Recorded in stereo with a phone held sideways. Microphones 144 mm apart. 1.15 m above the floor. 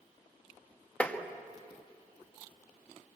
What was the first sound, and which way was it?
Tapping, 10° left (ahead or behind).